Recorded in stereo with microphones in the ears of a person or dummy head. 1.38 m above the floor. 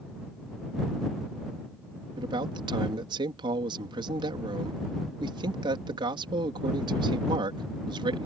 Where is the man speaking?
35° right (ahead or behind).